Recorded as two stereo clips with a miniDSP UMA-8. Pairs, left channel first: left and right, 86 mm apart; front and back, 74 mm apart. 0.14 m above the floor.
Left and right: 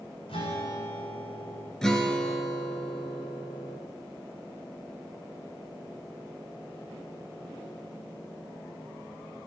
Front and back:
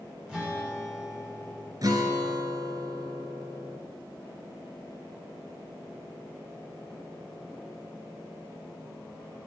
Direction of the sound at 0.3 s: 100° left.